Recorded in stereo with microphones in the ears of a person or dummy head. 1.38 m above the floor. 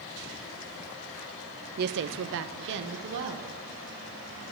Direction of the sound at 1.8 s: 45° right (ahead or behind).